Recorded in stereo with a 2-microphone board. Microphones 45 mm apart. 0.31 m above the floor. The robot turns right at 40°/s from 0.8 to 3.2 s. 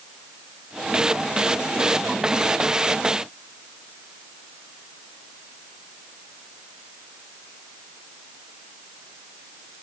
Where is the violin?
No violin in this recording.